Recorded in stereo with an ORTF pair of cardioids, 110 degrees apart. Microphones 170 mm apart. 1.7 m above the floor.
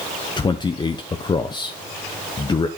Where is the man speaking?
25° left, 1.0 m.